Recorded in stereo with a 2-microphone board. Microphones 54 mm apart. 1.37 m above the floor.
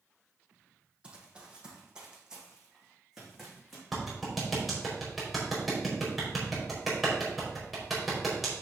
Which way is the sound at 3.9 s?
Centre (ahead or behind).